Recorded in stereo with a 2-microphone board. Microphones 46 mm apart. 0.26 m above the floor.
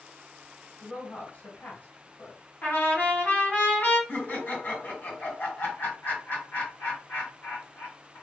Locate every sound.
0.8 s a woman speaking: 45° left (ahead or behind), 1.9 m
2.6 s a trumpet: 45° left (ahead or behind), 2 m
4.1 s laughter: 45° left (ahead or behind), 2 m